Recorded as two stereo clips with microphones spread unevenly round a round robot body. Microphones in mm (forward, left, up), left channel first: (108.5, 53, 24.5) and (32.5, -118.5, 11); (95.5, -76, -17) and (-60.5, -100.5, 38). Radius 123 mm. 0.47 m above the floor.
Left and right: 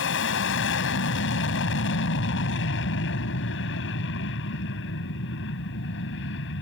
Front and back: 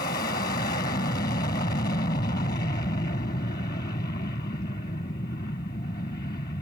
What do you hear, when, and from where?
0.0 s an aircraft: 70° left